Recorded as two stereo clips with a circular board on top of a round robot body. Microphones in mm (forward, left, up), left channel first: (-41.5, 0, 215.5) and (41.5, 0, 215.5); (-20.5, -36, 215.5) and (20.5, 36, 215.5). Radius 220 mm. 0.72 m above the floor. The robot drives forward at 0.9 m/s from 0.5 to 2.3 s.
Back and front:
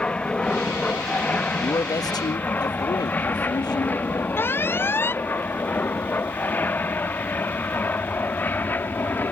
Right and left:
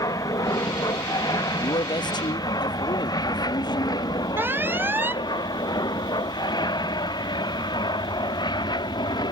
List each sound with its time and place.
0.0 s an aircraft: 105° right; by 9.3 s 115° right
1.6 s a man speaking: 130° right; by 4.3 s 145° right
4.4 s an alarm: 120° left